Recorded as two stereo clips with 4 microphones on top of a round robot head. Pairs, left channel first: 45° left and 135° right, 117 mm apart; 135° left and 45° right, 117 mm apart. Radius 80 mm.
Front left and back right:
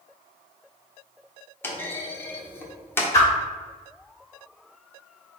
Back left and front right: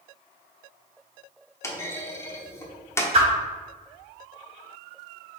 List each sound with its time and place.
1.6 s a clunk: 95° left, 1.0 m
3.1 s a whoosh: 15° right, 1.7 m